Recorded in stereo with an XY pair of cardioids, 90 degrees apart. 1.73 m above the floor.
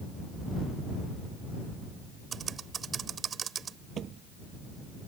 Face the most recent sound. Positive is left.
turn(degrees=-65)